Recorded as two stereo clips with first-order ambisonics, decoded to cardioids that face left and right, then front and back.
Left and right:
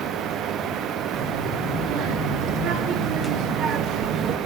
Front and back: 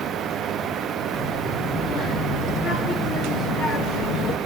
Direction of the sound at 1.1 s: 60° right.